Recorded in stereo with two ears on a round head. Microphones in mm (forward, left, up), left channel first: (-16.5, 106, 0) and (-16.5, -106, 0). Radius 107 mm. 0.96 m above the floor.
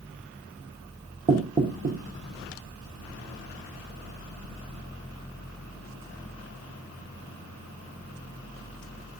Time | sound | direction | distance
1.3 | knocking | 35° right (ahead or behind) | 0.9 m